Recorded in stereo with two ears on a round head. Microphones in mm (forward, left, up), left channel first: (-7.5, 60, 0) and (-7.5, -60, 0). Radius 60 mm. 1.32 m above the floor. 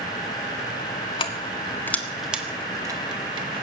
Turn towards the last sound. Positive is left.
turn(degrees=-45)  # may be behind; listen again after turning